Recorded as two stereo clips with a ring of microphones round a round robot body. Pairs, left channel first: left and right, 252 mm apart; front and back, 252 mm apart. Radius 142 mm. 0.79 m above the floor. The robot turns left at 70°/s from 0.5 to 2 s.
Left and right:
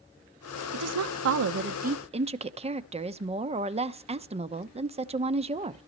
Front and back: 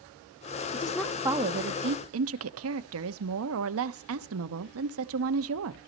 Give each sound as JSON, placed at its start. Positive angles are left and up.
{"t": 0.7, "sound": "a woman speaking", "azimuth_deg": -65, "distance_m": 1.0}